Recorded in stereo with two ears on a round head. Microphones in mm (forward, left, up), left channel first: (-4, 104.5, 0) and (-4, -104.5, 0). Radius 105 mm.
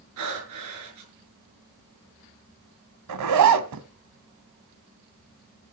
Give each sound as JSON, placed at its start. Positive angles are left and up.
{"t": 0.2, "sound": "breathing", "side_deg": -80, "distance_m": 6.5}
{"t": 3.1, "sound": "a zipper", "side_deg": -85, "distance_m": 1.6}